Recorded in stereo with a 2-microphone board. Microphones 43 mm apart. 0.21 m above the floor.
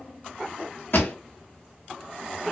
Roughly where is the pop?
Left.